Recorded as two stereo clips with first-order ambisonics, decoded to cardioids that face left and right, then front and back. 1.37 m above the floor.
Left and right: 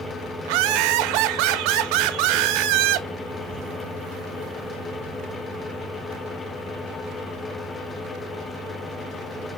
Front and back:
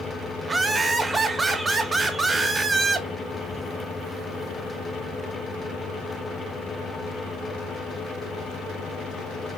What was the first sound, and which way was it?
Laughter, 100° right.